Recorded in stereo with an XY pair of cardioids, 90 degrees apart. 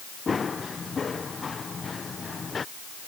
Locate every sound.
0.3 s running footsteps: 35° left